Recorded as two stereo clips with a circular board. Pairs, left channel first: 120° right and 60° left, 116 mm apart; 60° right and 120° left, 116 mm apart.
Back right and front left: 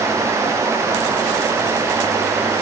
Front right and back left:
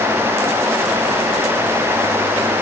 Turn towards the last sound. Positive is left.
No sound to turn to.